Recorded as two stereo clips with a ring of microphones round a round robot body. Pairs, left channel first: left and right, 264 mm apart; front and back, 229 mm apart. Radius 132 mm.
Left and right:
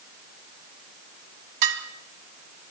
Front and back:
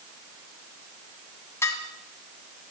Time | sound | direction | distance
1.6 | dishes clattering | 80° right | 3 m